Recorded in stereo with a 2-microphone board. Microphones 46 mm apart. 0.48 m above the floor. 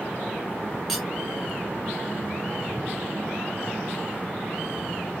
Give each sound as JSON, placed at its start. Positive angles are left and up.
{"t": 0.9, "sound": "cutlery clinking", "side_deg": 0, "distance_m": 2.0}